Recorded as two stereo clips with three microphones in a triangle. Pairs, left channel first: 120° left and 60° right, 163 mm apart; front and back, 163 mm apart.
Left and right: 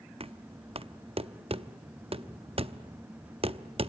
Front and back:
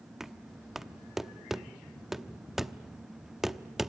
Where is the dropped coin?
No dropped coin in this recording.